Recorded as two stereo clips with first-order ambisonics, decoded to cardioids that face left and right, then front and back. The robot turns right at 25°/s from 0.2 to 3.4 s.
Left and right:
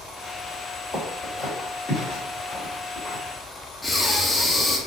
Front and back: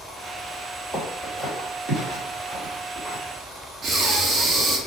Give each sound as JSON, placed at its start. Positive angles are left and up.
{"t": 0.9, "sound": "footsteps", "azimuth_deg": 145, "distance_m": 1.9}
{"t": 3.8, "sound": "breathing", "azimuth_deg": 165, "distance_m": 0.6}